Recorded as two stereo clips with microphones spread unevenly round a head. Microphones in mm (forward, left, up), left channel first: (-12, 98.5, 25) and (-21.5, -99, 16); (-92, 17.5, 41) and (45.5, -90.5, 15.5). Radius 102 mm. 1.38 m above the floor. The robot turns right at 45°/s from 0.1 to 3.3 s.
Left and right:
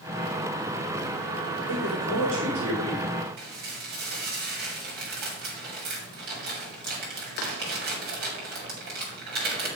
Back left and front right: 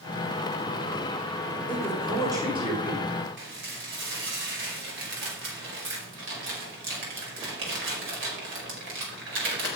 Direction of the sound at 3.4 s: 45° right.